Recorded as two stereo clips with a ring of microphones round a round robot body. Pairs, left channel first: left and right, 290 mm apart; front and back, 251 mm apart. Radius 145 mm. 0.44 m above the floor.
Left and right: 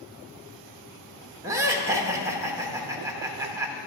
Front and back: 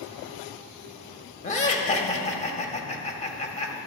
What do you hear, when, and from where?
1.4 s laughter: 20° right, 1.2 m